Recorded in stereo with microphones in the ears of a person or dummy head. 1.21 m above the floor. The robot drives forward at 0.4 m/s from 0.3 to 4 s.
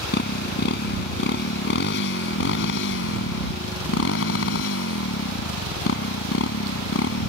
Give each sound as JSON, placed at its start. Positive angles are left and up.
{"t": 0.0, "sound": "a motorcycle", "side_deg": 60}